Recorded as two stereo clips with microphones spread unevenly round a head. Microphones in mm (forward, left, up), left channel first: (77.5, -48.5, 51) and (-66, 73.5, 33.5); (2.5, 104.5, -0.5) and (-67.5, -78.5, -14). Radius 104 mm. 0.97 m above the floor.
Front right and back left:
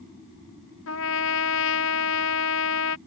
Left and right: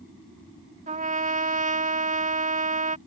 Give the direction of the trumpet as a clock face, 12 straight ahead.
2 o'clock.